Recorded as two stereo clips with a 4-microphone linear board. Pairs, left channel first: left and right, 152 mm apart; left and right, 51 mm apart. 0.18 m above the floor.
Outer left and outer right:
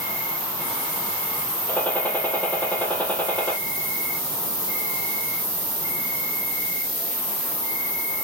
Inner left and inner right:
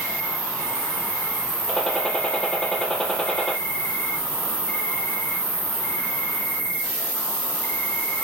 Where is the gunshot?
10° left (ahead or behind), 2 m.